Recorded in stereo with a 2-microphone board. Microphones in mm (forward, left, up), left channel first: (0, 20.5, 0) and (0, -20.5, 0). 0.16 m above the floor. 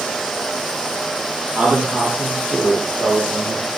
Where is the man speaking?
35° right (ahead or behind), 6 m.